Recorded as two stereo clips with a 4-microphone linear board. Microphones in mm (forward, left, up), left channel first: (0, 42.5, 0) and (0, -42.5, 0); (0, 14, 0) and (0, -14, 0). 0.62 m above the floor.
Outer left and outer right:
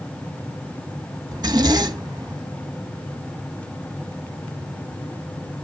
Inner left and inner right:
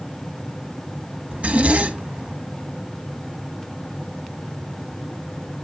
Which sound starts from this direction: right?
A zipper, at 1.3 s.